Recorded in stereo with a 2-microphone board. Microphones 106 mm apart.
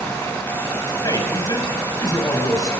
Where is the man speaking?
35° left (ahead or behind), 6.5 m.